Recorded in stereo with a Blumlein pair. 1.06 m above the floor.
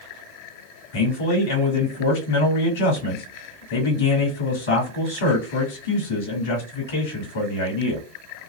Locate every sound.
0.9 s a man speaking: 55° left, 1.7 m